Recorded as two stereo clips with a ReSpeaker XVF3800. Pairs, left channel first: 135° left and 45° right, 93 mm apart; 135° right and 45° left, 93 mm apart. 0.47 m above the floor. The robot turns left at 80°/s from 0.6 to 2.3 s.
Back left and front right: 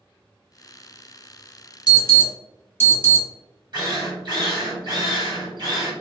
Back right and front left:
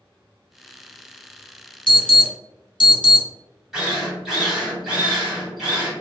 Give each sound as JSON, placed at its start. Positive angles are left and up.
{"t": 1.9, "sound": "an alarm", "azimuth_deg": -120, "distance_m": 1.3}
{"t": 3.7, "sound": "a drill", "azimuth_deg": -45, "distance_m": 2.0}